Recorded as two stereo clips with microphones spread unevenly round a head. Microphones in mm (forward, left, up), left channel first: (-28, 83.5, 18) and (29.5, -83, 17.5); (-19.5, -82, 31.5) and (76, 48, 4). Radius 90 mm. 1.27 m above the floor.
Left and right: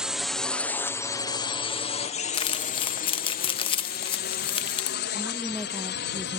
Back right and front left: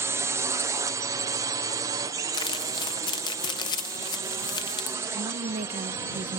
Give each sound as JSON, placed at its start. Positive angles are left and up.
{"t": 0.0, "sound": "a drone", "azimuth_deg": 10}
{"t": 2.3, "sound": "crumpling", "azimuth_deg": 170}
{"t": 5.1, "sound": "a woman speaking", "azimuth_deg": 20}